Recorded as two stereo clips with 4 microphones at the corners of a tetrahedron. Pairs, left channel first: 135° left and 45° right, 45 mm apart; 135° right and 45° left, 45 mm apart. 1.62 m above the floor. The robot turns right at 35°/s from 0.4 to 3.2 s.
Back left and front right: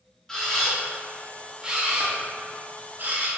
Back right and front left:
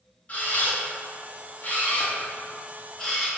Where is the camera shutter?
155° right, 0.5 m; by 3.3 s 60° right, 0.5 m.